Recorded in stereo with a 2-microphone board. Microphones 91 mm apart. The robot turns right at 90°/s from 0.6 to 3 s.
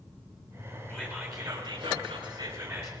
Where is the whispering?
155° left, 2.5 m; by 2.9 s 25° right, 2.5 m.